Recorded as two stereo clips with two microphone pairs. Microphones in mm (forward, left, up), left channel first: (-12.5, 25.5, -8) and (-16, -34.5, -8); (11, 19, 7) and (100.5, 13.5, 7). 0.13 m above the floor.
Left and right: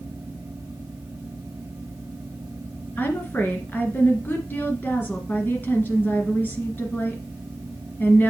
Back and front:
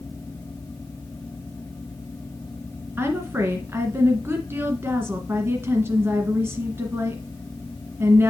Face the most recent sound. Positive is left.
turn(degrees=45)